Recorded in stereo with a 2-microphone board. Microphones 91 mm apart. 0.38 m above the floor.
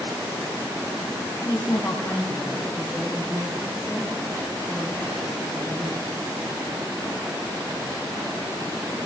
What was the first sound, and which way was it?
A woman speaking, 45° left (ahead or behind).